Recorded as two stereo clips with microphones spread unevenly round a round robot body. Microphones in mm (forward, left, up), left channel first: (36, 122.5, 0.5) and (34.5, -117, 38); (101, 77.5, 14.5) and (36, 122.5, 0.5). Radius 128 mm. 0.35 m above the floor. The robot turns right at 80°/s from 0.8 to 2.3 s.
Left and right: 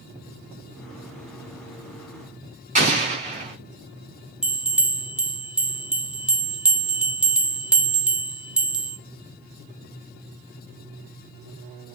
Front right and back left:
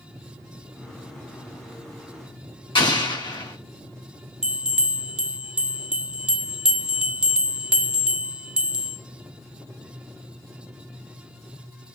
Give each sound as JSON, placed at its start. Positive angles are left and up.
{"t": 2.8, "sound": "an explosion", "azimuth_deg": -30, "distance_m": 4.5}
{"t": 4.4, "sound": "a bell", "azimuth_deg": 165, "distance_m": 0.7}